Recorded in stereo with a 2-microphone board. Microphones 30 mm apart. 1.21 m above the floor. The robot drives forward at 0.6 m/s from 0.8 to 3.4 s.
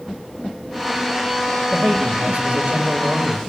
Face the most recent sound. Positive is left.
turn(degrees=-40)  # may be behind; listen again after turning